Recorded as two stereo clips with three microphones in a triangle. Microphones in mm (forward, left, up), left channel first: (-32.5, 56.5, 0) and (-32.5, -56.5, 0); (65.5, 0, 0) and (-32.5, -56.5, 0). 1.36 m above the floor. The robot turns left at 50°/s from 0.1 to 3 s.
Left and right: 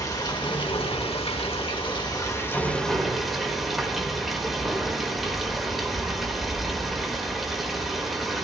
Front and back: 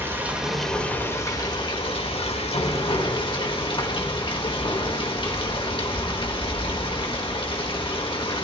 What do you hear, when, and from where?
0.0 s running water: 145° left, 1.6 m; by 8.4 s straight ahead, 1.6 m